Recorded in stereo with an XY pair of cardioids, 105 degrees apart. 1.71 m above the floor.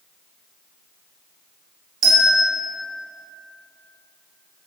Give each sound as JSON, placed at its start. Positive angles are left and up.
{"t": 2.0, "sound": "a bell", "azimuth_deg": -55, "distance_m": 1.0}